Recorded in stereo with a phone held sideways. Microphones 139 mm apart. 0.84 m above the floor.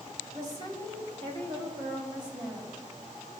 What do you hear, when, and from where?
0.3 s a woman speaking: 60° right (ahead or behind), 3.5 m; by 3.4 s 25° right (ahead or behind), 6 m